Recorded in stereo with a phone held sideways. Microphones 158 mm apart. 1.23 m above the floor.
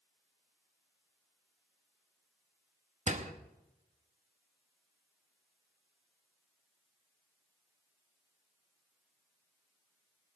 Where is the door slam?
50° right (ahead or behind), 1.0 m.